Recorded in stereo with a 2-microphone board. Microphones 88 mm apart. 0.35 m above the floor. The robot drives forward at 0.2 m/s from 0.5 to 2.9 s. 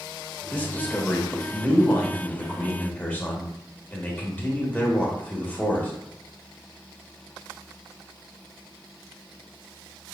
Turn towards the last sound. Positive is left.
turn(degrees=20)  # may be behind; listen again after turning